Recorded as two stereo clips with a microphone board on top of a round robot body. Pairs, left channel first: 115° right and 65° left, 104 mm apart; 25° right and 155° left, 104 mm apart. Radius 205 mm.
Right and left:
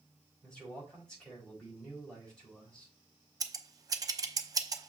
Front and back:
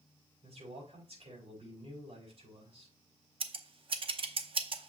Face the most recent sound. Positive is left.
turn(degrees=125)